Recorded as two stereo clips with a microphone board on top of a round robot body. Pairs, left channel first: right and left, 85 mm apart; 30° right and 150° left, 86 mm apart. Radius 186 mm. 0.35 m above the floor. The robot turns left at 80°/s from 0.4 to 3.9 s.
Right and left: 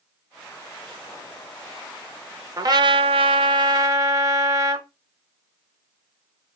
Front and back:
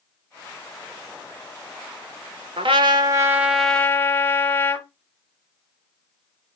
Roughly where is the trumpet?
Behind left.